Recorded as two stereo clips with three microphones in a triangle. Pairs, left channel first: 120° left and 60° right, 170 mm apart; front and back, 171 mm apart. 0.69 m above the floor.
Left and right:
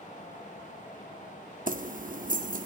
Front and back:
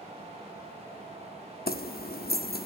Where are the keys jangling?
25° right, 0.7 m.